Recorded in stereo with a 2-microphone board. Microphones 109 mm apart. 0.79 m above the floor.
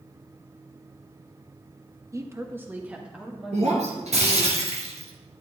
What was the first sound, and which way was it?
A woman speaking, 25° right (ahead or behind).